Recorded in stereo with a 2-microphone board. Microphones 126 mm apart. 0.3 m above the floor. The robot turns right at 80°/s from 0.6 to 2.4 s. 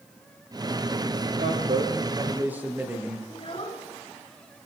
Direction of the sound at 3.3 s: 45° left (ahead or behind).